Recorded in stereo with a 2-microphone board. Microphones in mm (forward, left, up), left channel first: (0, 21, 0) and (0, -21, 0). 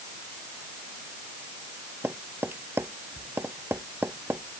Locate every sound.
2.0 s tapping: 65° right (ahead or behind)